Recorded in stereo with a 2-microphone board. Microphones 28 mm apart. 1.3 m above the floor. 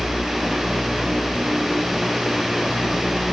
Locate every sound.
Only background noise.